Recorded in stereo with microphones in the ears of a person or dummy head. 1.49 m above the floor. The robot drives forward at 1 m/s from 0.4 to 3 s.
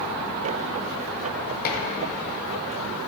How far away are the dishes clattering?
About 1.2 m.